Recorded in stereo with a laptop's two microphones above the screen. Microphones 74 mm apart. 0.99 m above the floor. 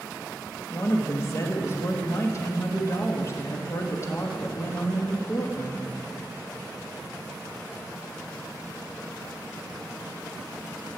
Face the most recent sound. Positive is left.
turn(degrees=35)  # may be behind; listen again after turning